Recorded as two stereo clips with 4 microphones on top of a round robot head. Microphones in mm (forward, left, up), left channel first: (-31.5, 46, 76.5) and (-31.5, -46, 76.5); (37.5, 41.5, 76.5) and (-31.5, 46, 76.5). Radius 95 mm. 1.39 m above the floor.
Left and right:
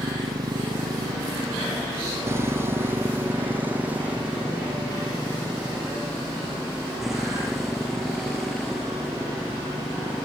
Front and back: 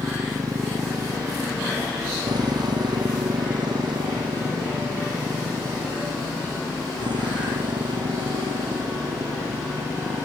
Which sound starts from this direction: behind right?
A motorcycle, at 0.0 s.